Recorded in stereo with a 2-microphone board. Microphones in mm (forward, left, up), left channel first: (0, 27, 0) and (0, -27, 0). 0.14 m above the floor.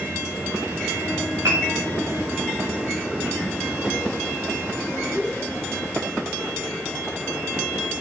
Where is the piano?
75° right (ahead or behind), 5 m.